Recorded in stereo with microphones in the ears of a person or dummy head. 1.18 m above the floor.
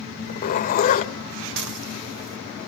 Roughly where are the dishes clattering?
Right.